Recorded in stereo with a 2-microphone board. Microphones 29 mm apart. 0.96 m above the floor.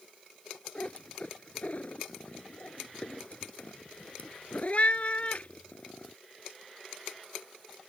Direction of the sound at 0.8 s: 50° left (ahead or behind).